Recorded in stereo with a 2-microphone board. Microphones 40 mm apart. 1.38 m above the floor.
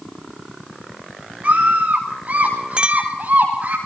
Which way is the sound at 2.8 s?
30° right (ahead or behind).